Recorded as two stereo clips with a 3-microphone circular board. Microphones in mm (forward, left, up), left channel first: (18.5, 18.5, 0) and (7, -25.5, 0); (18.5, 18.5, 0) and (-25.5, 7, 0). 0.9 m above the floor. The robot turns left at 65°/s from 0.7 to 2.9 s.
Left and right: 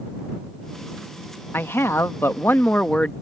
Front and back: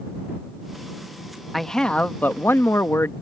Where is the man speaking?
100° left; by 3.1 s 15° left.